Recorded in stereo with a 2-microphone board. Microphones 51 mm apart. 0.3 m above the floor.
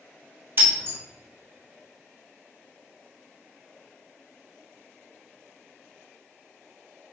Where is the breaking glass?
50° right (ahead or behind), 1.5 m.